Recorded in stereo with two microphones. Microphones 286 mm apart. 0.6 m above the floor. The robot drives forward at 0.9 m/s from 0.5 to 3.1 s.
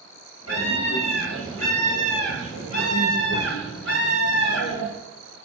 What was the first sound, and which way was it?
A scream, 75° left (ahead or behind).